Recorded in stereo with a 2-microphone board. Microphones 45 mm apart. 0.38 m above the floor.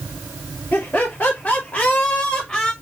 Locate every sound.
0.7 s laughter: 45° left (ahead or behind), 1.1 m; by 2.7 s 15° left (ahead or behind), 1.3 m